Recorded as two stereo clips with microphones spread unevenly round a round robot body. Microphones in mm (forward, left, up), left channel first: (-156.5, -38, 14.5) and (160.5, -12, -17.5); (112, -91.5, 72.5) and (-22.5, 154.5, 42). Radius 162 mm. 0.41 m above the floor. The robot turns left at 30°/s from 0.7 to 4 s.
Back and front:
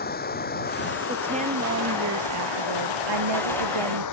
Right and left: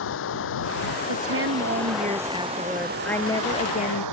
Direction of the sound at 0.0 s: 115° right.